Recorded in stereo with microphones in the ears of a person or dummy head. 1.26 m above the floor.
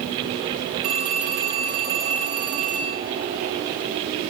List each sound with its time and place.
0.8 s a phone ringing: 35° right (ahead or behind), 1.4 m